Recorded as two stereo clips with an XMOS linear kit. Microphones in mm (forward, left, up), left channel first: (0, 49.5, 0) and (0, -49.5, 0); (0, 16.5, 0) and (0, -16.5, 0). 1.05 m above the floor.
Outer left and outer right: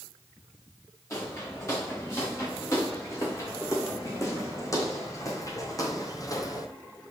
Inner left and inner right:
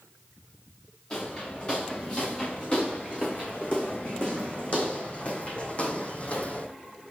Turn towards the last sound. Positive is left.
turn(degrees=40)  # may be behind; listen again after turning